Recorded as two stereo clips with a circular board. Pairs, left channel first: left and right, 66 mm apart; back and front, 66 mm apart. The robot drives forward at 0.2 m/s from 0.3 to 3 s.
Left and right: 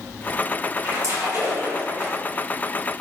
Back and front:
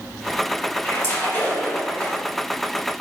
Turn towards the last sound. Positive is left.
turn(degrees=-135)